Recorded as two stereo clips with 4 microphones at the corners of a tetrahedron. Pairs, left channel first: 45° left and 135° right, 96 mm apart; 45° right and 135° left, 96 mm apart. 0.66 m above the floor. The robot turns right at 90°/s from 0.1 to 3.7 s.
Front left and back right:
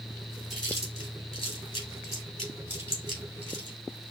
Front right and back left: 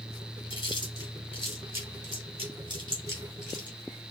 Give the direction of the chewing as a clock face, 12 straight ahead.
1 o'clock.